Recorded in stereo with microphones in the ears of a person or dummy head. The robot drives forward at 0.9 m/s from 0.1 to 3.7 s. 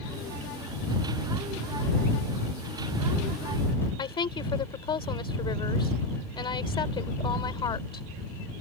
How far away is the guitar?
I don't hear a guitar.